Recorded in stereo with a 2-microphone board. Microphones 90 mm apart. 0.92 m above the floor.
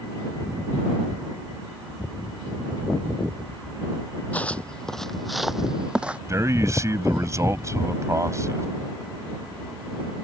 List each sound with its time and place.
4.3 s footsteps: 15° left (ahead or behind); by 6.2 s 15° right (ahead or behind)
6.3 s a man speaking: 30° right (ahead or behind)